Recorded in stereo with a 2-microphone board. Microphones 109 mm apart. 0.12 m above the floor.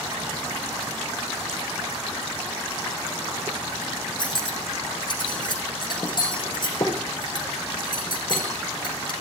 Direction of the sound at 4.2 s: 40° left (ahead or behind).